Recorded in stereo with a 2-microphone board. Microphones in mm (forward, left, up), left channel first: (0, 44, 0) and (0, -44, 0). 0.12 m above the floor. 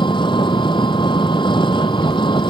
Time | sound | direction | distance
0.0 | an engine running | 65° left (ahead or behind) | ?